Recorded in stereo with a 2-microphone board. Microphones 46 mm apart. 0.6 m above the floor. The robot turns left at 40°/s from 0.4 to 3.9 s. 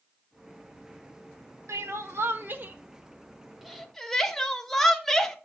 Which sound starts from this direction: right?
Crying, at 1.7 s.